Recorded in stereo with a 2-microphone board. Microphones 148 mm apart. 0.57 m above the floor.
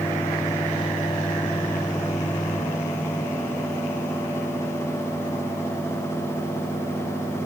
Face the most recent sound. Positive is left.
No sound to turn to.